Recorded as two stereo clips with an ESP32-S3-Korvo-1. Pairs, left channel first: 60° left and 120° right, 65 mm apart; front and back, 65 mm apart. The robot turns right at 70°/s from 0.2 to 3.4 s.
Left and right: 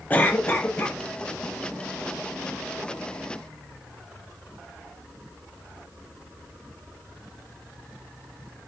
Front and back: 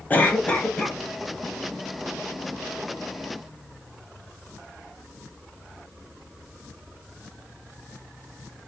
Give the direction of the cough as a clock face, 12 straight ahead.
11 o'clock.